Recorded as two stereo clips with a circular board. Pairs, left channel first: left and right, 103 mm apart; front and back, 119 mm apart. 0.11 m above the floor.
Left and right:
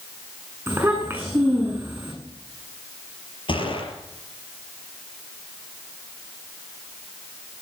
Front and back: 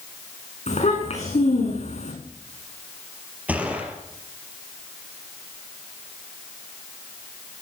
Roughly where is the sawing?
No sawing in this recording.